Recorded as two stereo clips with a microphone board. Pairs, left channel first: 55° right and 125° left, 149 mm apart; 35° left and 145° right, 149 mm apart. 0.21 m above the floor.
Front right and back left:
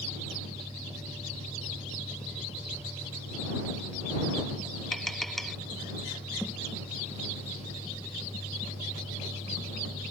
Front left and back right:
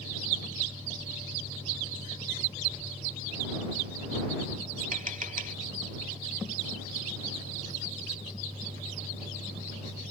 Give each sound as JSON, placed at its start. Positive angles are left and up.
{"t": 4.9, "sound": "tapping", "azimuth_deg": -145}